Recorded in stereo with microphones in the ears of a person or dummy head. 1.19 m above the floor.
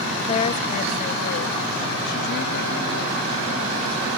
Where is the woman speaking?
35° left (ahead or behind); by 4.2 s 80° left.